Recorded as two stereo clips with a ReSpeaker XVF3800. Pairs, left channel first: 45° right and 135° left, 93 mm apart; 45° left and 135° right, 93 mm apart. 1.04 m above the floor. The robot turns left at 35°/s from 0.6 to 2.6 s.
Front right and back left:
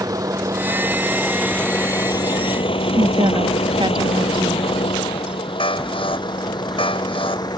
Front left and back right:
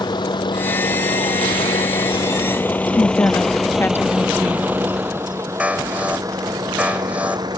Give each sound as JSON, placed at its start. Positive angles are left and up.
{"t": 0.0, "sound": "a vehicle", "azimuth_deg": 85}
{"t": 2.9, "sound": "a woman speaking", "azimuth_deg": 110}
{"t": 5.6, "sound": "an alarm", "azimuth_deg": -60}